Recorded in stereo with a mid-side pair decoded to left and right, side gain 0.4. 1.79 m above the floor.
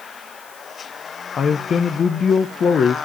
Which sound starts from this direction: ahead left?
A man speaking, at 1.4 s.